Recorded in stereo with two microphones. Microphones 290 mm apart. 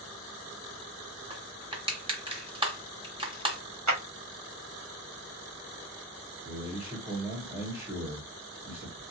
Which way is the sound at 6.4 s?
15° right (ahead or behind).